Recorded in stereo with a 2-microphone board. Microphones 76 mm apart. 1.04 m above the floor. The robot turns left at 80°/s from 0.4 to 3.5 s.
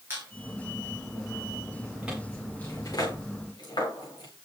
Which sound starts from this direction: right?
A squeak, at 0.1 s.